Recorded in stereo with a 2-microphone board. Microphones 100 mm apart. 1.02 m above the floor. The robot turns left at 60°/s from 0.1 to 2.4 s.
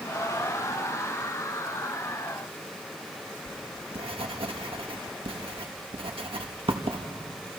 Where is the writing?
65° right (ahead or behind), 1.6 m.